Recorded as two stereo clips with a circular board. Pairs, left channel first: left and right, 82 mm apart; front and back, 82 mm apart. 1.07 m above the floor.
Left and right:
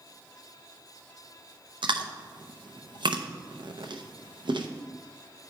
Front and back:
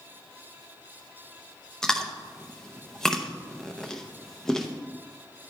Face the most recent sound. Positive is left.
turn(degrees=-85)